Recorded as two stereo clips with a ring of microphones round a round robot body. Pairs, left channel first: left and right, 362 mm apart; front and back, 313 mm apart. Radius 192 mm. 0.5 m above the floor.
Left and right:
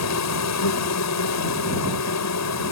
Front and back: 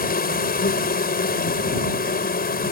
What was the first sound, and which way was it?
An insect, 55° left.